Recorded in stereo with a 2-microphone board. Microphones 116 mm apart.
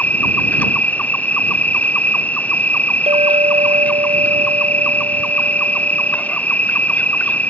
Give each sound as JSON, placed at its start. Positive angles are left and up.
{"t": 0.0, "sound": "an insect", "side_deg": 10}
{"t": 3.1, "sound": "a clink", "side_deg": -65}